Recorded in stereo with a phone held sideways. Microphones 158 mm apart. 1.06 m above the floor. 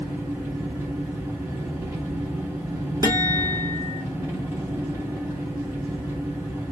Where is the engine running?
15° right (ahead or behind), 1.7 m.